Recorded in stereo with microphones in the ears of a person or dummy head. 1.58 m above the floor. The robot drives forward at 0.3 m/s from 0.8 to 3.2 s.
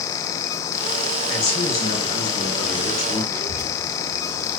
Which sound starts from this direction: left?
A man speaking, at 1.3 s.